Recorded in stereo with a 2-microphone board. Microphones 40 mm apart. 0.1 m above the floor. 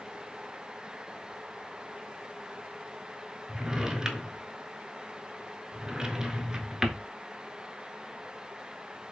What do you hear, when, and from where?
3.5 s a drawer: 15° right (ahead or behind), 0.6 m